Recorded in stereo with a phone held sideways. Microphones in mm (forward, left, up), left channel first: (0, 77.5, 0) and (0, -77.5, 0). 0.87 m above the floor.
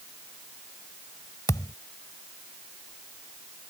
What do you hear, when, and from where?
1.5 s a thud: 20° left (ahead or behind)